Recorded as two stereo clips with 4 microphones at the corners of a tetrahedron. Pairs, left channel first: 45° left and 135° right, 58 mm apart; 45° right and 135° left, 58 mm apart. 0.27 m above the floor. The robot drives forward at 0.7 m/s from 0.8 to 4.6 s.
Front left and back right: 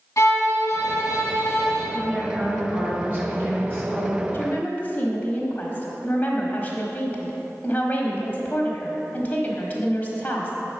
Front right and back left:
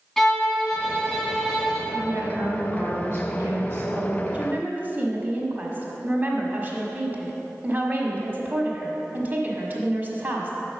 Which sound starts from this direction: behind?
A woman speaking, at 1.9 s.